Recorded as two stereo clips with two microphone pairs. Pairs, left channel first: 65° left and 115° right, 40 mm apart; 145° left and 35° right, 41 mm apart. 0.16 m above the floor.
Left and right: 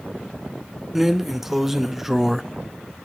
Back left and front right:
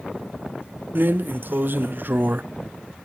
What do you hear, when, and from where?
0.9 s a drawer: 30° right, 0.5 m